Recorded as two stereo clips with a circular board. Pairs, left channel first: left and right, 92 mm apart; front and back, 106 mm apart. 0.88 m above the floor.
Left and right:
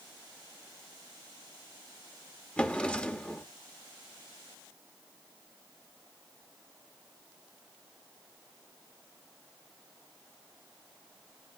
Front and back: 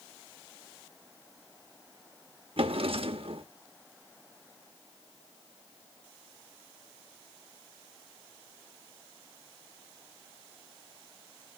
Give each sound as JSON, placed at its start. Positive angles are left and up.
{"t": 2.6, "sound": "a drawer", "azimuth_deg": 165, "distance_m": 0.8}